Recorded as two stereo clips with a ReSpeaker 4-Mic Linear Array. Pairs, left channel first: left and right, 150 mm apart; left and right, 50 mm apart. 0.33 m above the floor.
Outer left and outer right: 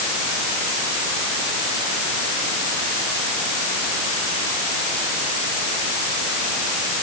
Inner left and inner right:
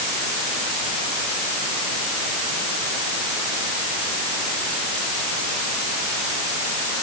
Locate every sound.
Only background noise.